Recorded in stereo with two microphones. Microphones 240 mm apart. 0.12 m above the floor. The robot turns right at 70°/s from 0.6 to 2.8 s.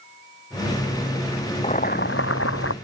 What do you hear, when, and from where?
1.6 s boiling: 30° left; by 2.7 s 105° left